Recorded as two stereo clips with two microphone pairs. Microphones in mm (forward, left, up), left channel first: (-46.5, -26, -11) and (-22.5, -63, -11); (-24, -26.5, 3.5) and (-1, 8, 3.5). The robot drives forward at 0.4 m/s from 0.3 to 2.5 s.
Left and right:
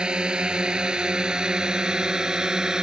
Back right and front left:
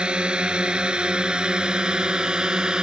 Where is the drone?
Straight ahead.